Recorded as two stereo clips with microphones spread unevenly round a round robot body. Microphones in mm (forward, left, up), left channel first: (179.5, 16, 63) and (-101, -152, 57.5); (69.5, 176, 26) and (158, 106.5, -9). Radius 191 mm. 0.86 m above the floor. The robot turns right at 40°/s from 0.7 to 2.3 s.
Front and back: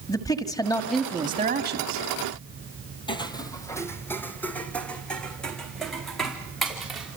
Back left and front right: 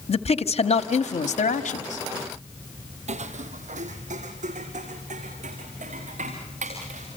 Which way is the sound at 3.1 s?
40° right.